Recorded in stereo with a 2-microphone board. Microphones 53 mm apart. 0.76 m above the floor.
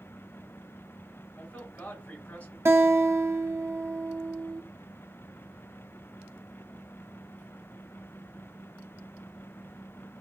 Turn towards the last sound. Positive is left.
turn(degrees=-65)  # may be behind; listen again after turning